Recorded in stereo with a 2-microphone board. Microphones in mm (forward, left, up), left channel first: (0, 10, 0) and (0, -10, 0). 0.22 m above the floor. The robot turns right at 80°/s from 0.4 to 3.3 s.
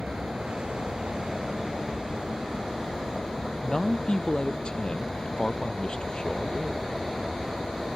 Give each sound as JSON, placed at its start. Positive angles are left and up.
{"t": 0.0, "sound": "an aircraft", "azimuth_deg": -95}
{"t": 3.6, "sound": "a man speaking", "side_deg": 45}